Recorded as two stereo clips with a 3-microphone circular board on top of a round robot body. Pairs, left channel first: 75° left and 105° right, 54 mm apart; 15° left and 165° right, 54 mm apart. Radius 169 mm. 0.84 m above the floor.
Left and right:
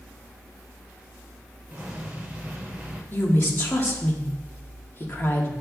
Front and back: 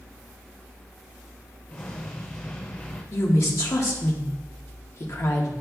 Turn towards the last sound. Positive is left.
turn(degrees=30)